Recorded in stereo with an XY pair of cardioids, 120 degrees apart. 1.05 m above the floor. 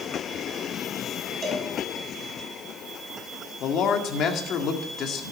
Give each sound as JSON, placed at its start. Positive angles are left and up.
{"t": 1.4, "sound": "a cowbell", "azimuth_deg": -35, "distance_m": 5.0}
{"t": 3.6, "sound": "a man speaking", "azimuth_deg": 60, "distance_m": 1.9}